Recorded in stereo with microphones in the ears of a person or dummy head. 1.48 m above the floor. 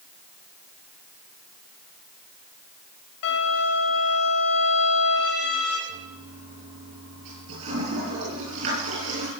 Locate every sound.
3.2 s a violin: 70° left (ahead or behind), 3.5 m
5.9 s a toilet flushing: 80° right, 9.5 m